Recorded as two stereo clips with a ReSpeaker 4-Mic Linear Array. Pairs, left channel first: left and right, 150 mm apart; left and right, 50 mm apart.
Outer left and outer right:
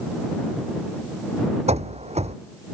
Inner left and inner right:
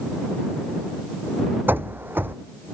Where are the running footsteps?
45° right (ahead or behind).